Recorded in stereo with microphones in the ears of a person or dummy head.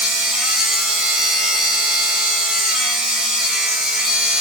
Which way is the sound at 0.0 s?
Centre (ahead or behind).